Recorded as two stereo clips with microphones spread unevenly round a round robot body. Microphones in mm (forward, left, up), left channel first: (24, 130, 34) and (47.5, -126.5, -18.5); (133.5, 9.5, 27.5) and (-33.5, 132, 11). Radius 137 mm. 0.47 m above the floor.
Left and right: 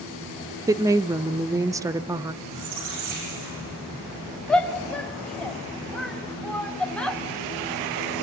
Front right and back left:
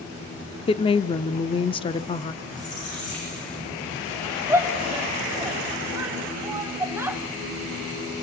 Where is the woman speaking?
75° right, 0.7 m.